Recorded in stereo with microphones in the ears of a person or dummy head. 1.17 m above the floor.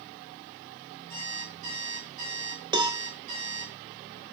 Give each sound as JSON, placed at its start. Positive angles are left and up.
{"t": 1.1, "sound": "an alarm clock", "side_deg": -35, "distance_m": 5.0}
{"t": 2.7, "sound": "a cowbell", "side_deg": -20, "distance_m": 0.6}